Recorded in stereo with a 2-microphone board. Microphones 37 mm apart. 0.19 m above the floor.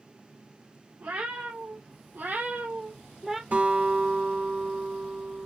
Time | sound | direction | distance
1.0 | a cat meowing | 90° right | 1.9 m
3.5 | a guitar | 70° right (ahead or behind) | 3 m